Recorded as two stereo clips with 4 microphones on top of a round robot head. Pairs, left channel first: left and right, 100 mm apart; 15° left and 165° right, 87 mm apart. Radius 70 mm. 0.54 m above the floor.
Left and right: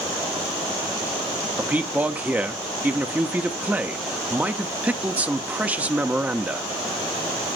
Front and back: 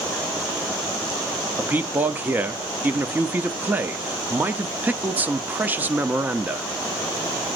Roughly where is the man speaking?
Behind right.